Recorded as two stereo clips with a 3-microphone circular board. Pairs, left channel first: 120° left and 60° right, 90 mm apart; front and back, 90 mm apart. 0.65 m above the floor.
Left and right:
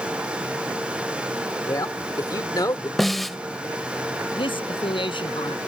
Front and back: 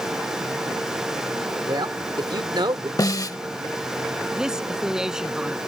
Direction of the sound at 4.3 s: 95° left.